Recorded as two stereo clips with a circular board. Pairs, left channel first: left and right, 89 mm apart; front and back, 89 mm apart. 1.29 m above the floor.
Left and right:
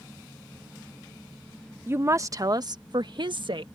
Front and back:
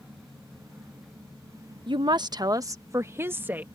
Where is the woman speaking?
155° right; by 3.7 s 110° right.